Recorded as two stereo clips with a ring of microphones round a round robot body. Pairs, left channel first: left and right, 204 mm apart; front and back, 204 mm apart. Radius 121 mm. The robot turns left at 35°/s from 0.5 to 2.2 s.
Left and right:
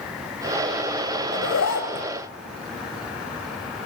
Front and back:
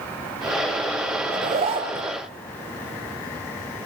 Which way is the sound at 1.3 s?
130° left.